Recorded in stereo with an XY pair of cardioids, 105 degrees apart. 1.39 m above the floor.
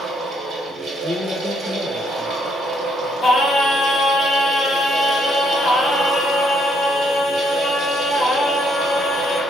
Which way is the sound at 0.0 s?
60° right.